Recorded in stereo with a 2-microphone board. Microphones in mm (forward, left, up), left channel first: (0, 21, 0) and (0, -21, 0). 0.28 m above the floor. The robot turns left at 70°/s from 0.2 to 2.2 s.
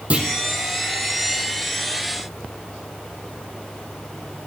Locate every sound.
0.1 s a clunk: 35° right (ahead or behind), 1.8 m; by 0.3 s 40° right (ahead or behind), 1.8 m